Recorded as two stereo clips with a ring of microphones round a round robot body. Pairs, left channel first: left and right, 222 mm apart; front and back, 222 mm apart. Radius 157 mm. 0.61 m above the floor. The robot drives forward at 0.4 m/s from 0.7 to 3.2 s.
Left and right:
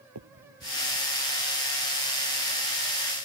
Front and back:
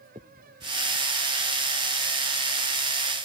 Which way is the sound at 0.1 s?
105° right.